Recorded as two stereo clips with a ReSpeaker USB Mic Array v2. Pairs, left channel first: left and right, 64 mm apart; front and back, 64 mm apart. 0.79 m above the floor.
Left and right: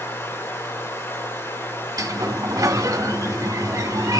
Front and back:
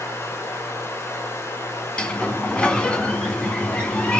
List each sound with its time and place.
0.0 s running water: 45° left, 3 m
2.0 s a sliding door: 75° right, 1.8 m